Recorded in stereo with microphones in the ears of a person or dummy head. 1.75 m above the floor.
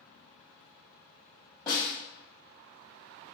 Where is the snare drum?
20° left (ahead or behind), 1.9 m.